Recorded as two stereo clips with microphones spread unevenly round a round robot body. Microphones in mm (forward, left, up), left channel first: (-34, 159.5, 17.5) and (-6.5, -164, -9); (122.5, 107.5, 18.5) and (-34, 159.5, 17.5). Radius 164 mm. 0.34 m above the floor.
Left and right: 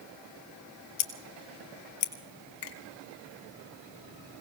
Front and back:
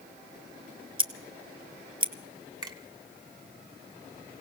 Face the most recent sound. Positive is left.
turn(degrees=95)